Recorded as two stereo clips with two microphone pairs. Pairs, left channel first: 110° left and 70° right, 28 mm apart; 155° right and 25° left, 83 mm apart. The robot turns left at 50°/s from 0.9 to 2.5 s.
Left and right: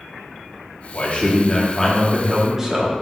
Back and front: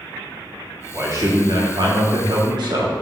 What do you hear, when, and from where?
0.9 s a man speaking: 80° left, 1.5 m; by 2.9 s straight ahead, 1.5 m